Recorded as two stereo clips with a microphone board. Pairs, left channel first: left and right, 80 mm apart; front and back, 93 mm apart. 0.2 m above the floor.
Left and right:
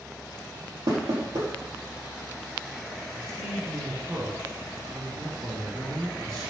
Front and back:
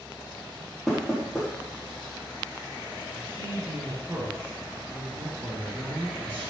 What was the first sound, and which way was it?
Knocking, 95° right.